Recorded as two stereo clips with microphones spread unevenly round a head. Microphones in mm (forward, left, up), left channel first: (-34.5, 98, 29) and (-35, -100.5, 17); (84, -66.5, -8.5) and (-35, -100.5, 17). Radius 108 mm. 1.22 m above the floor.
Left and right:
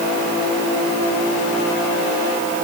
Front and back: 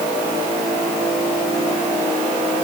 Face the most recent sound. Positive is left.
No sound to turn to.